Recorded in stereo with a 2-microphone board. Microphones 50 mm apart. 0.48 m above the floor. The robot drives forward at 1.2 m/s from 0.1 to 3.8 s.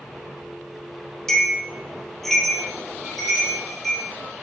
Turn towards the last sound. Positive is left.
turn(degrees=5)  # may be behind; listen again after turning